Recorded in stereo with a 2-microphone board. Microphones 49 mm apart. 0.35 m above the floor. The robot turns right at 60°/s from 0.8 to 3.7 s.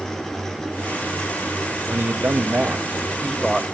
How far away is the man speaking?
About 1.4 m.